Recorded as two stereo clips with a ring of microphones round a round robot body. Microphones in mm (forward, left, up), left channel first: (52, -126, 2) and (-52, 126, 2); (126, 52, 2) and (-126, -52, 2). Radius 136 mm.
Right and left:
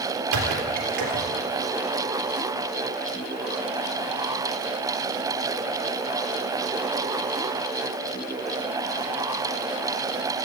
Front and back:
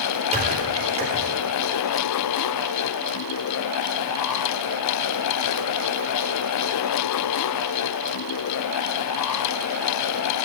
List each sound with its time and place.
0.3 s a squeak: 135° left, 3.5 m